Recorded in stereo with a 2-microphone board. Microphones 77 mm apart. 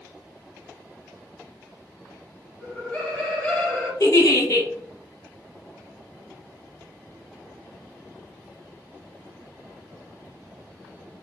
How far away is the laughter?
About 1.4 m.